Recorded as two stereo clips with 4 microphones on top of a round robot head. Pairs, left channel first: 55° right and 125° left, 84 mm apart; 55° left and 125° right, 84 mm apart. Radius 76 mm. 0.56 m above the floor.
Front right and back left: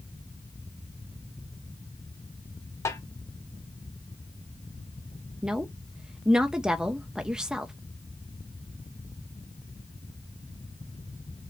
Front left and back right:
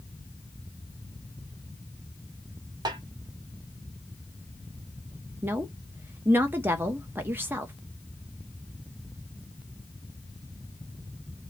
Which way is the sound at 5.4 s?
160° right.